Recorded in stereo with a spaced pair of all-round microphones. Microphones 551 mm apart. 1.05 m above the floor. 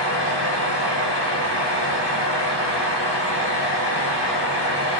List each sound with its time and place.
0.0 s a fan: 50° left (ahead or behind), 1.1 m